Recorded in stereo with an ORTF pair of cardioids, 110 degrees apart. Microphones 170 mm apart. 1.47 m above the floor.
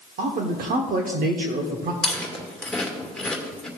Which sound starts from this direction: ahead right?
A man speaking, at 0.2 s.